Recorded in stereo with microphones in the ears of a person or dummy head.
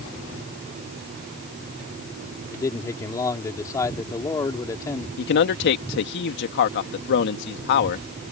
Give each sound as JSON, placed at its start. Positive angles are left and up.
{"t": 2.5, "sound": "a man speaking", "side_deg": 25}
{"t": 5.2, "sound": "a man speaking", "side_deg": 75}